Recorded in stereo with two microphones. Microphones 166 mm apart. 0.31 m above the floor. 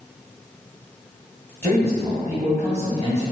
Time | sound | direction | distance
1.6 | a man speaking | 15° left (ahead or behind) | 1.5 m